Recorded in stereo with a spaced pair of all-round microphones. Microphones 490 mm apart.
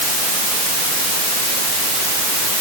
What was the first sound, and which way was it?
Only background noise.